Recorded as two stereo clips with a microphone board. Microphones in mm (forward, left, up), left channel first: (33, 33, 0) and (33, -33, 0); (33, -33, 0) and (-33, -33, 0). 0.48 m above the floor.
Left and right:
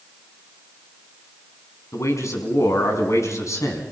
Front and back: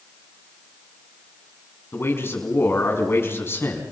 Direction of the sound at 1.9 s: 50° left.